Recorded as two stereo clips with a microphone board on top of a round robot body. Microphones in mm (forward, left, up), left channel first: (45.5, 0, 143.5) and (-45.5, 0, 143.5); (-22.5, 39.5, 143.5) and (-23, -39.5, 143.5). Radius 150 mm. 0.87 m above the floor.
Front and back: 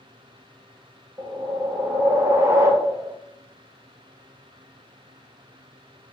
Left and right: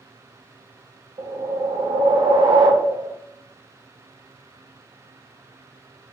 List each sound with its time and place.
1.2 s a whoosh: 125° right, 1.1 m